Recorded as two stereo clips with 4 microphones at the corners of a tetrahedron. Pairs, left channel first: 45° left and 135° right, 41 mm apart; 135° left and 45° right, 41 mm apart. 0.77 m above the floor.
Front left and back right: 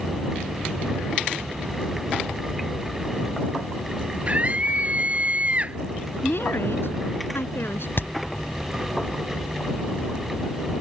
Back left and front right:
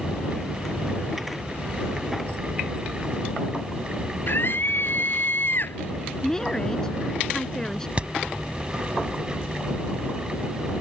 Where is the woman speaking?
60° left.